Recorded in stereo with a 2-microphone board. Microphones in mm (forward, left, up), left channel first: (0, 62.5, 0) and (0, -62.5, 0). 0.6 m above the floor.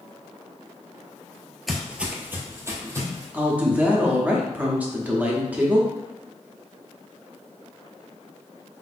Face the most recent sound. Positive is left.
turn(degrees=-10)  # may be behind; listen again after turning